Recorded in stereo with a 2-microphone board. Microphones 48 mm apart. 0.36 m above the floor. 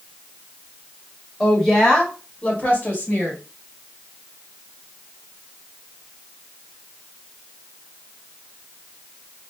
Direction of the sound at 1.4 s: Centre (ahead or behind).